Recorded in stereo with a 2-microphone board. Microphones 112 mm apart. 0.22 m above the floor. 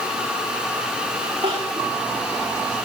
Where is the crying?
60° right (ahead or behind), 8.5 m.